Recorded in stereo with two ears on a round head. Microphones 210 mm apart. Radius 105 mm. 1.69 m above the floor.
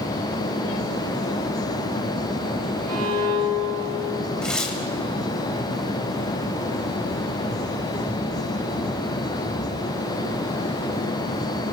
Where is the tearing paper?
5° left (ahead or behind), 2.5 m.